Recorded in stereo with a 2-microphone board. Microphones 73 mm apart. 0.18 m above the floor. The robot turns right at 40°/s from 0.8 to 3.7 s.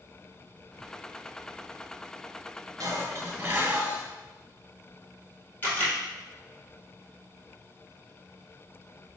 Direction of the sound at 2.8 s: 65° right.